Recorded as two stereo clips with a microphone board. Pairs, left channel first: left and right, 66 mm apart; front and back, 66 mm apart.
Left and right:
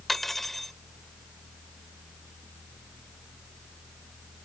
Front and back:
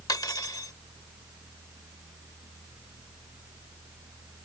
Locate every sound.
0.1 s cutlery clinking: straight ahead